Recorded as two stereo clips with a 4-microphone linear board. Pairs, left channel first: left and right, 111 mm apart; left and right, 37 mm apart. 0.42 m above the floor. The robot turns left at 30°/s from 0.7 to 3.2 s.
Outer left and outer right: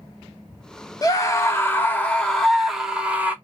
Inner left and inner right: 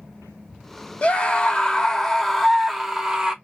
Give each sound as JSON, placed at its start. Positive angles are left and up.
{"t": 1.0, "sound": "a scream", "azimuth_deg": 50, "distance_m": 1.2}